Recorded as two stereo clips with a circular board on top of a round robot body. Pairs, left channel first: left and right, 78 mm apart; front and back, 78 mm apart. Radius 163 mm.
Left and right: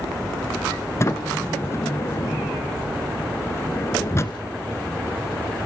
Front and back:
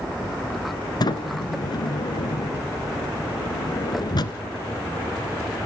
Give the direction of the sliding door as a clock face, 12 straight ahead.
11 o'clock.